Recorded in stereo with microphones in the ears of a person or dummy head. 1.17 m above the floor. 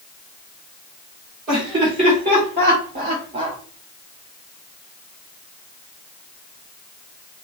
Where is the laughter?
30° right (ahead or behind), 2.5 m.